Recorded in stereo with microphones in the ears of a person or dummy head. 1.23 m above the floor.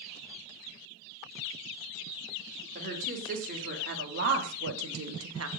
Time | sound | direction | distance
2.8 | a woman speaking | 45° right (ahead or behind) | 4.5 m